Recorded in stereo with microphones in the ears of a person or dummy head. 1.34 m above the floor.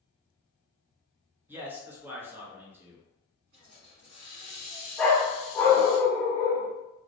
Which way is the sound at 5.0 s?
10° left (ahead or behind).